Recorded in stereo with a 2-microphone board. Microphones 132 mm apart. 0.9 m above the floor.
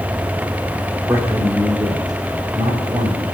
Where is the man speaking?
20° right (ahead or behind), 2.5 m; by 3.2 s 35° right (ahead or behind), 5.5 m.